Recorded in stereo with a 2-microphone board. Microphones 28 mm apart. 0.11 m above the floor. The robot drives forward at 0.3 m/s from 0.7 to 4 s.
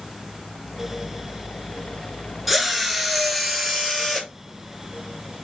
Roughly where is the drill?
Centre.